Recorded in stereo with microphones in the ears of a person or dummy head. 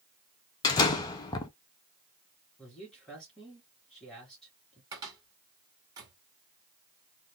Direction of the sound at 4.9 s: 25° right (ahead or behind).